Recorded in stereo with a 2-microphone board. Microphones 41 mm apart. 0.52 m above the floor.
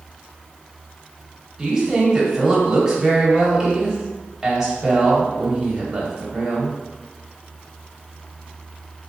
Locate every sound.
1.6 s a woman speaking: 10° right (ahead or behind), 1.2 m